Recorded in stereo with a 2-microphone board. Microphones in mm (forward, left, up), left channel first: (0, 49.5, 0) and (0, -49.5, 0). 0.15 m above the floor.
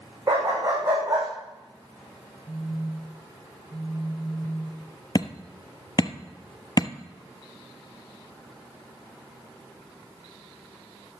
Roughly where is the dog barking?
Right.